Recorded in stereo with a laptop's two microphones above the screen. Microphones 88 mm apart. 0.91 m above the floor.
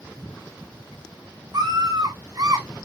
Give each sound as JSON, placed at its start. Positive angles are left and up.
{"t": 1.5, "sound": "a scream", "side_deg": -50, "distance_m": 6.0}